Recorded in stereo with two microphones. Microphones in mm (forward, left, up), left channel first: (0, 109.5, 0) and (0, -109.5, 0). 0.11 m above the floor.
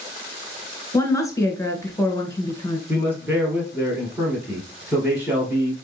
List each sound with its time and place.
0.9 s a woman speaking: 15° left (ahead or behind), 1.1 m
2.9 s a man speaking: 10° right (ahead or behind), 2 m